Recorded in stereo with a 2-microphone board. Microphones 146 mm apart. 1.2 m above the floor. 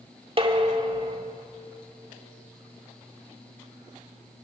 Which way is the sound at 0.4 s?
40° right (ahead or behind).